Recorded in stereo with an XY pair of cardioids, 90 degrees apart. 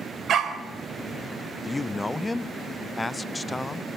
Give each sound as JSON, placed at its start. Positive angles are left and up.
{"t": 0.3, "sound": "a dog barking", "azimuth_deg": -65, "distance_m": 3.5}
{"t": 1.6, "sound": "a man speaking", "azimuth_deg": 15, "distance_m": 0.8}